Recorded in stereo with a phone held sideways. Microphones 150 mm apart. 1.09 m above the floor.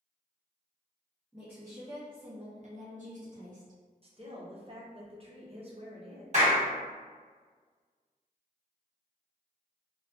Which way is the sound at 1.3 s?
10° right (ahead or behind).